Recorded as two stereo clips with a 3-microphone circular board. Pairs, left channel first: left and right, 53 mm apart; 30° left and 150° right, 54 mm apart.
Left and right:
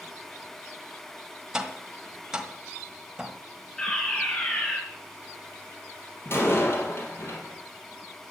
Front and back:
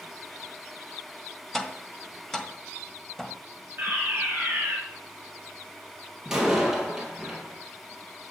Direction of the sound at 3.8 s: 165° left.